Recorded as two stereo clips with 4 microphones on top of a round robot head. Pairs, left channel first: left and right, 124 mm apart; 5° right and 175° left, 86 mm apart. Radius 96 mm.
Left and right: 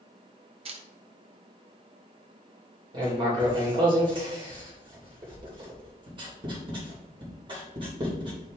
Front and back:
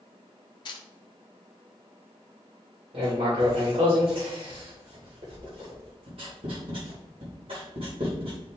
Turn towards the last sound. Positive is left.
turn(degrees=-140)